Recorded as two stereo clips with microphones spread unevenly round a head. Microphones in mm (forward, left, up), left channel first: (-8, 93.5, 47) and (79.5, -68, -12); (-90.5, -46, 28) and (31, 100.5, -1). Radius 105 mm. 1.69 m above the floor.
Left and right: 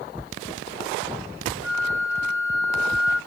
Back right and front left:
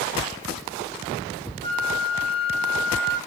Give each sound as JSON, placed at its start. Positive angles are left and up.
{"t": 1.6, "sound": "a flute", "azimuth_deg": -160, "distance_m": 1.2}